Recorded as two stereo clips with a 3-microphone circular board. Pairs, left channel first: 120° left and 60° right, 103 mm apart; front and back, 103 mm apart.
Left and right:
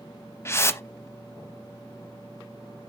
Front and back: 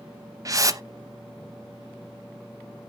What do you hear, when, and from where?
0.5 s a whoosh: 160° left, 0.6 m